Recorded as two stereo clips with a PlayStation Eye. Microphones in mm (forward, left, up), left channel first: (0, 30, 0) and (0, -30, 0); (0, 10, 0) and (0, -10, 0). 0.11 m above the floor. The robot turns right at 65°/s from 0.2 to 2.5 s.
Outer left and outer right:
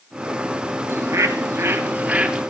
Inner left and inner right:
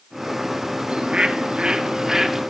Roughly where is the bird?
Right.